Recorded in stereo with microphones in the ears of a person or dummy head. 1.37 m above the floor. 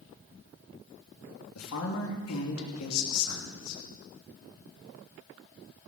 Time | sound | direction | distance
1.6 | a woman speaking | 85° left | 3 m